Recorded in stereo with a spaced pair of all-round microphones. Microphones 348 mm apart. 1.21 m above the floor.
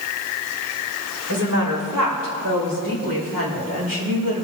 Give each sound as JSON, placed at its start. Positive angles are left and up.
{"t": 1.3, "sound": "a woman speaking", "side_deg": -60, "distance_m": 4.0}